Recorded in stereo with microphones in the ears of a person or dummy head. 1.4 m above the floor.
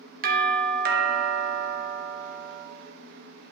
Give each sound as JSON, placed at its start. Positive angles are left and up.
{"t": 0.2, "sound": "a doorbell", "side_deg": -40, "distance_m": 0.9}